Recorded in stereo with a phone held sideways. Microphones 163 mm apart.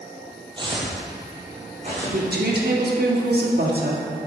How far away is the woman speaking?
About 1.7 m.